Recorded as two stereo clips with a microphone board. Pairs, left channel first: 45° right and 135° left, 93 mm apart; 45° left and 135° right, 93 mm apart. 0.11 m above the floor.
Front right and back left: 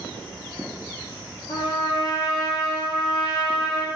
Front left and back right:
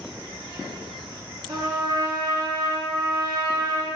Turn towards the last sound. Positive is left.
turn(degrees=-85)